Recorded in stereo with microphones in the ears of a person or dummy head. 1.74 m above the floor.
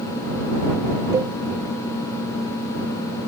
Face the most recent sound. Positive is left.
turn(degrees=-20)  # may be behind; listen again after turning